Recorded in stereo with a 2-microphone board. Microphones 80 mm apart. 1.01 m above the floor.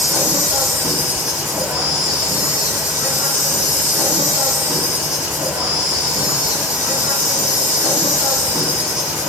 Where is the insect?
50° right (ahead or behind), 2 m.